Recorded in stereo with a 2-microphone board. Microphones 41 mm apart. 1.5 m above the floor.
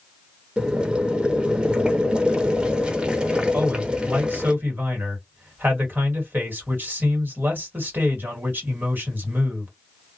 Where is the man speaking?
50° right (ahead or behind), 1.4 m.